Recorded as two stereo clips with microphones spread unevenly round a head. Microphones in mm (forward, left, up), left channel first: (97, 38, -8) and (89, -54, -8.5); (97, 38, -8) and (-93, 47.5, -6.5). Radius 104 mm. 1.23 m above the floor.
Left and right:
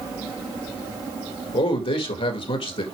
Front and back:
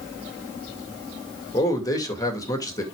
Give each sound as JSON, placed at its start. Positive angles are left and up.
{"t": 1.5, "sound": "a man speaking", "azimuth_deg": 70, "distance_m": 2.0}